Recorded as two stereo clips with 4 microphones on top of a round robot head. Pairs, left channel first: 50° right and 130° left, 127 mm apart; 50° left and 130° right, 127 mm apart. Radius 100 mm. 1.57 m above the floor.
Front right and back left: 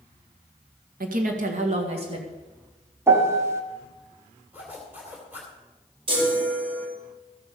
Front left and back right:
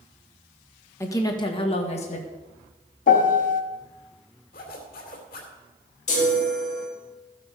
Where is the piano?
60° left, 1.2 m.